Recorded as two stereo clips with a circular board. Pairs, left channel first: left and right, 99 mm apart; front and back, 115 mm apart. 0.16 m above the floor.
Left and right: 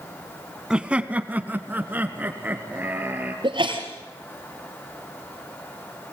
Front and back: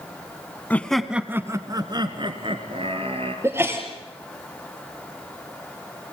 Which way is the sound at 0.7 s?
30° right.